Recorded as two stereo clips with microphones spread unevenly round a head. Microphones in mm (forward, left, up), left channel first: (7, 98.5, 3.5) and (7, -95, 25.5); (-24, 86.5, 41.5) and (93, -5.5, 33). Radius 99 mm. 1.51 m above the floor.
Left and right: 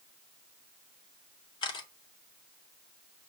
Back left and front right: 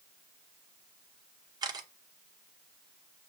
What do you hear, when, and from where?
1.6 s a camera shutter: 20° left, 1.0 m